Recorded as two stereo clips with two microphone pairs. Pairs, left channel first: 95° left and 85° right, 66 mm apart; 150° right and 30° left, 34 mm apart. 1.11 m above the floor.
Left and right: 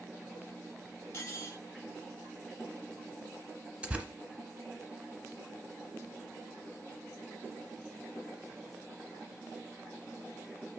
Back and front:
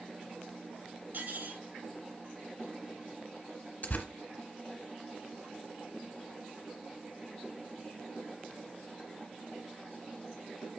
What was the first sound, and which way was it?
Cutlery clinking, 45° left.